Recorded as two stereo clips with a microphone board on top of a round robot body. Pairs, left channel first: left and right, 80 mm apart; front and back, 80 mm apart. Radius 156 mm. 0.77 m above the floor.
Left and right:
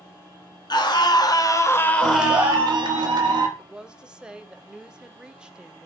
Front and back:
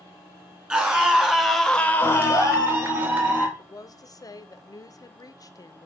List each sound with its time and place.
0.7 s a scream: 105° left, 1.3 m; by 3.0 s 45° right, 1.1 m
2.0 s a clap: 115° right, 1.0 m
3.6 s a woman speaking: 15° right, 0.6 m